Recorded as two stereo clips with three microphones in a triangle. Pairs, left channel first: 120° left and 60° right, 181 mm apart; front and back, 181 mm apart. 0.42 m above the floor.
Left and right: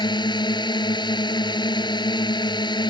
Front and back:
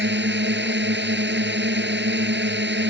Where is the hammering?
No hammering in this recording.